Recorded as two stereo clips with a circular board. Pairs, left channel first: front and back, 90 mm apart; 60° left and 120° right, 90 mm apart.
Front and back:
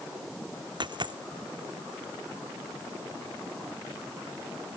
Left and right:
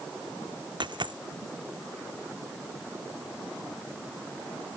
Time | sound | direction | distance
0.8 | a dropped coin | 150° right | ?